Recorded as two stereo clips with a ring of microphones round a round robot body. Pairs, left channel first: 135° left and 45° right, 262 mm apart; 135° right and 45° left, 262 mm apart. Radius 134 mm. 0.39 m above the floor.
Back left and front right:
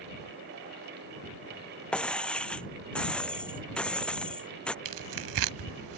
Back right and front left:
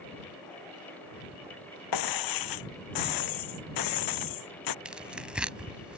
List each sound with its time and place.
1.9 s breaking glass: 140° right
4.8 s tearing paper: 40° right